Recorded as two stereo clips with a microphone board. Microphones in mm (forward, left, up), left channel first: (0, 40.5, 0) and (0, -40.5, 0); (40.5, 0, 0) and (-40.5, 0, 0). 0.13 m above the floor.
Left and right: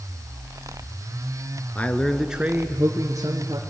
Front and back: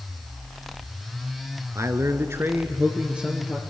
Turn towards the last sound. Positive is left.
turn(degrees=-100)